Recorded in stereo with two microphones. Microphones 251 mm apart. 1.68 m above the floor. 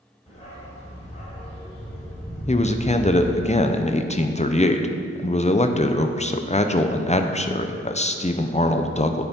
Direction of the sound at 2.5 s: 25° left (ahead or behind).